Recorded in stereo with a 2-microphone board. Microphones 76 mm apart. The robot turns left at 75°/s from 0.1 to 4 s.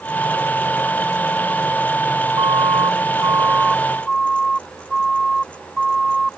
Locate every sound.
2.4 s a siren: 70° right (ahead or behind); by 6.4 s 5° right (ahead or behind)